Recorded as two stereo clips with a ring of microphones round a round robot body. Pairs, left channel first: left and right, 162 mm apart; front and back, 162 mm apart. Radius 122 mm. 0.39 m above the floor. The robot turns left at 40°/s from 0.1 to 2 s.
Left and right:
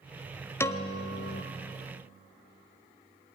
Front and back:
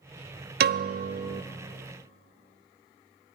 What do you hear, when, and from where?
0.6 s a piano: 165° left, 0.8 m; by 1.4 s 135° left, 0.8 m